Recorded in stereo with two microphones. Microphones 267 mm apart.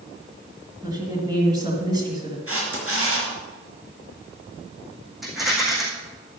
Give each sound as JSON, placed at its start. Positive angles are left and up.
{"t": 0.8, "sound": "a woman speaking", "side_deg": -15, "distance_m": 2.0}
{"t": 2.5, "sound": "a camera shutter", "side_deg": -55, "distance_m": 4.0}
{"t": 5.2, "sound": "a rattle", "side_deg": 0, "distance_m": 3.5}